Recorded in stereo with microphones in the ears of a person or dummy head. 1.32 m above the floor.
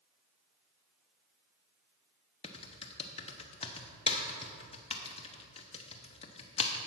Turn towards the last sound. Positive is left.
turn(degrees=30)  # may be behind; listen again after turning